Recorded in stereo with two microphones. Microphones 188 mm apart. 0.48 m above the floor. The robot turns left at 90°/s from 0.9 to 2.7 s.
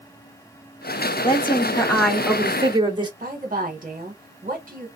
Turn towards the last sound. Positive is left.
turn(degrees=-50)  # may be behind; listen again after turning